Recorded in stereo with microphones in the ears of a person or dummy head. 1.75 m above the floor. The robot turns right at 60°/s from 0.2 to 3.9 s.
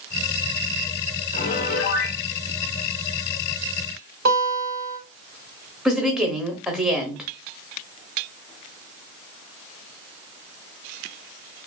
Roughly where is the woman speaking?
Centre.